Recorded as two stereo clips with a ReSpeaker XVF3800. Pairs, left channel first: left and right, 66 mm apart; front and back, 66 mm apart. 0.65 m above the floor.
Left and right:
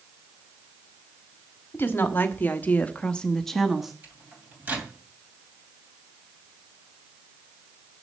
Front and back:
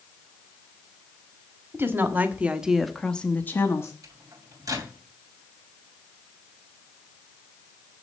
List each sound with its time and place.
1.7 s a woman speaking: 140° left, 1.5 m; by 3.9 s 5° right, 1.2 m
4.0 s a microwave: 150° right, 2.5 m